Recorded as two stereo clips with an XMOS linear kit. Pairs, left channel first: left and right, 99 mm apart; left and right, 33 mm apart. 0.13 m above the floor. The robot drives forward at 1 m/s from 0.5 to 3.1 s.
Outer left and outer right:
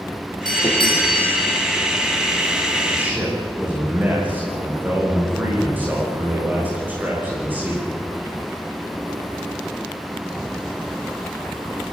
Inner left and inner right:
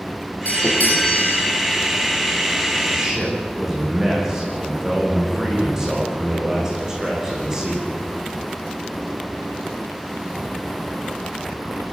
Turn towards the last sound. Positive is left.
turn(degrees=-20)  # may be behind; listen again after turning